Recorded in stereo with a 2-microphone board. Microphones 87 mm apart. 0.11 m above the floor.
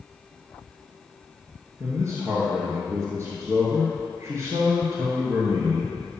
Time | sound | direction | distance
1.8 | a man speaking | 35° right (ahead or behind) | 1.6 m